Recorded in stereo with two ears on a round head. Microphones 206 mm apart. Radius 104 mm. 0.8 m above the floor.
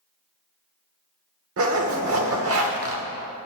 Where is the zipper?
65° right (ahead or behind), 1.3 m.